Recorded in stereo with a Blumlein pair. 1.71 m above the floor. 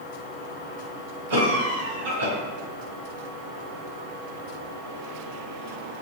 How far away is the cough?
About 1.7 m.